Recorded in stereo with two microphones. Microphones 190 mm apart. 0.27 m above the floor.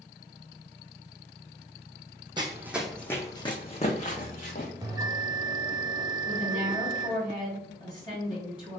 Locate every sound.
2.4 s running footsteps: 25° right (ahead or behind), 0.6 m; by 4.7 s 50° left (ahead or behind), 1.2 m
4.8 s a bell: 20° right (ahead or behind), 0.7 m
6.2 s a woman speaking: 25° left (ahead or behind), 1.6 m